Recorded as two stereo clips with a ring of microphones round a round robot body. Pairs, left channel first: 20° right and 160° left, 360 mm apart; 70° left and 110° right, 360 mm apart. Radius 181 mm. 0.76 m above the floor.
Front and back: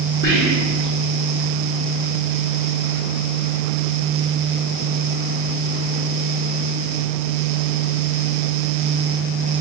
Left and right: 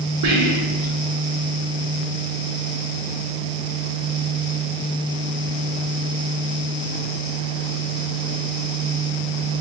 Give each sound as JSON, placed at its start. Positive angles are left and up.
{"t": 0.2, "sound": "whispering", "azimuth_deg": -85, "distance_m": 0.7}